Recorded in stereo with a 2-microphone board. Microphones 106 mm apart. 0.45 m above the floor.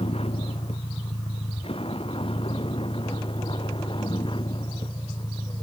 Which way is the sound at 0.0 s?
70° left (ahead or behind).